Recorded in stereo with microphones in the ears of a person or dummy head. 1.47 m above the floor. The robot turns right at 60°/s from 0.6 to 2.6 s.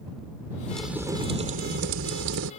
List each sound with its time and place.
0.7 s a crack: 170° left; by 2.5 s 80° right